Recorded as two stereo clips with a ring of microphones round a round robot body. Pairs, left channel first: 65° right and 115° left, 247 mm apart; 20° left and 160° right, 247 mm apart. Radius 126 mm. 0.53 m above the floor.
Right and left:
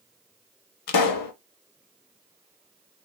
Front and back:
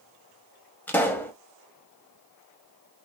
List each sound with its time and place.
0.9 s a pop: 60° right, 0.6 m